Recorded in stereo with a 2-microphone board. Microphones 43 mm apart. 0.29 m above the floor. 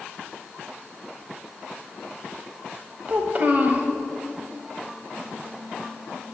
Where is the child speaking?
40° right (ahead or behind), 1.1 m.